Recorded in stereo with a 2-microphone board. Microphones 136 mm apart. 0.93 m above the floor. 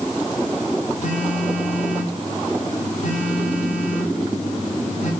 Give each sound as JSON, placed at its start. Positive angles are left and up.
{"t": 1.0, "sound": "a phone buzzing", "side_deg": 65, "distance_m": 7.5}